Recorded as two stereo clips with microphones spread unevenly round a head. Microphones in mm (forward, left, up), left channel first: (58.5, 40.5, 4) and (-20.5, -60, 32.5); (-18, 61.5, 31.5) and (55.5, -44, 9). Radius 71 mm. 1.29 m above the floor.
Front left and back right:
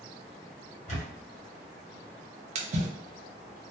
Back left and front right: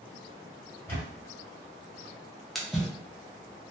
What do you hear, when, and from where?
0.9 s a camera shutter: 75° left, 1.4 m
2.5 s a splash: 130° right, 0.6 m